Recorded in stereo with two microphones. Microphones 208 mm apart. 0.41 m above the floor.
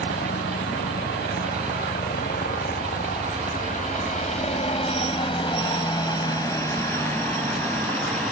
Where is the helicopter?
60° left (ahead or behind); by 8.3 s 5° left (ahead or behind).